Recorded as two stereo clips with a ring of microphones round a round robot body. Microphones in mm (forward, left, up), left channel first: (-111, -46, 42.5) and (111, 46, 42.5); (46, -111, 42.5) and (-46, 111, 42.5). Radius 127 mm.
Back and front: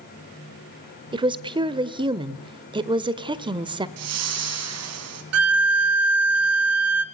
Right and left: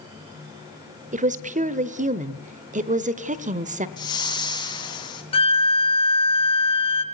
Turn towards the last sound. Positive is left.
turn(degrees=0)